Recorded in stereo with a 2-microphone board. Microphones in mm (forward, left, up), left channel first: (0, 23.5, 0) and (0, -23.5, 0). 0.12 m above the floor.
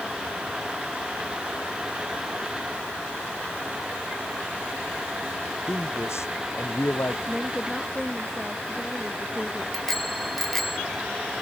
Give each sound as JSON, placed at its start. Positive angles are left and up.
{"t": 5.7, "sound": "a man speaking", "side_deg": 75}
{"t": 7.3, "sound": "a woman speaking", "side_deg": 10}
{"t": 9.7, "sound": "a bicycle bell", "side_deg": 5}